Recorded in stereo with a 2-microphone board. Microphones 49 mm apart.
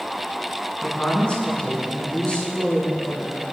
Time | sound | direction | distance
0.8 | a woman speaking | 20° left (ahead or behind) | 2.5 m